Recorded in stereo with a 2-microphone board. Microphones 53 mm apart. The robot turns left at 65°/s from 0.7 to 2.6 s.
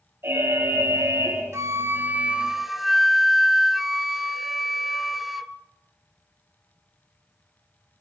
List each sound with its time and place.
0.2 s an alarm: 50° right, 5 m; by 1.4 s 100° right, 5 m
1.5 s a flute: 105° right, 0.8 m; by 5.5 s 175° right, 0.8 m